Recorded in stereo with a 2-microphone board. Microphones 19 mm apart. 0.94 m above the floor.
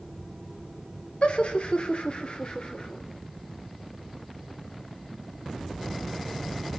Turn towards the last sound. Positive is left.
turn(degrees=50)  # may be behind; listen again after turning